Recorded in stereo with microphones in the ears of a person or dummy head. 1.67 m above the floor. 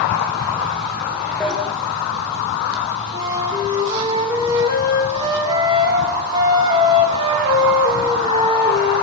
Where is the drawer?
5° right (ahead or behind), 2 m.